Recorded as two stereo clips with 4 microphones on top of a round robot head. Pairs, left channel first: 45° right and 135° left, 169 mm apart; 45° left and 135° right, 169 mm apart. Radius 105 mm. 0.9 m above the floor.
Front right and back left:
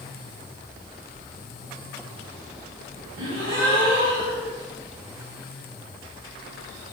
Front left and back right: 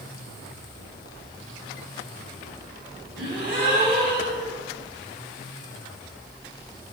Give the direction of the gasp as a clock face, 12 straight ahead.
7 o'clock.